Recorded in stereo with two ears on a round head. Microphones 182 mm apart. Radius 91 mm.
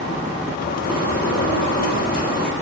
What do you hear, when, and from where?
0.6 s a bird: 45° left (ahead or behind), 6.5 m